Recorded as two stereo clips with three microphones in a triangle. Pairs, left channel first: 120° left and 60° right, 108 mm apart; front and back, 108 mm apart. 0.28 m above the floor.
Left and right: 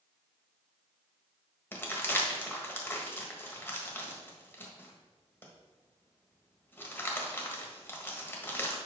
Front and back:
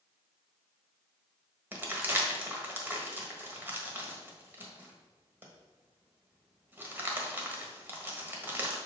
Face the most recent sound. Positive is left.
turn(degrees=150)